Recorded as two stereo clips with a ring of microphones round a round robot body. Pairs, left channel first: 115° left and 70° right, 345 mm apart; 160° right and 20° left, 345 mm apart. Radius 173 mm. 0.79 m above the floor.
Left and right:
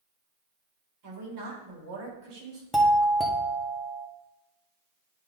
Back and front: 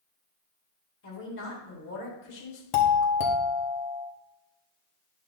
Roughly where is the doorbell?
Behind.